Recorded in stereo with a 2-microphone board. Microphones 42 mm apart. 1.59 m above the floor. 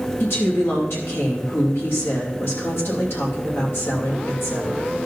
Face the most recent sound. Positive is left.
turn(degrees=70)  # may be behind; listen again after turning